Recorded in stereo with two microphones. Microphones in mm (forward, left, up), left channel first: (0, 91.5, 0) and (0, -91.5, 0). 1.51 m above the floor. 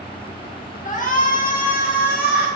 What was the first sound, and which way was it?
A shout, 45° left (ahead or behind).